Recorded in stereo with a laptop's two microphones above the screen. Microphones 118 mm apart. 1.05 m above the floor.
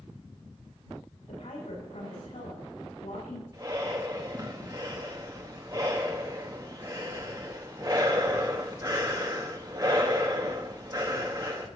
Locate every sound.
1.3 s a woman speaking: 75° left (ahead or behind), 6.5 m
3.5 s breathing: 30° right (ahead or behind), 0.8 m